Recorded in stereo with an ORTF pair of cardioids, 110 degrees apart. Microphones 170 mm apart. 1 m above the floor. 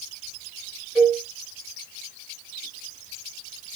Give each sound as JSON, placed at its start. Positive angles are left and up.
{"t": 0.9, "sound": "a cowbell", "azimuth_deg": 0, "distance_m": 2.5}